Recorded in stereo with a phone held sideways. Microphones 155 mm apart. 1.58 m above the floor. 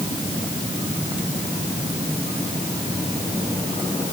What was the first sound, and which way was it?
Only background noise.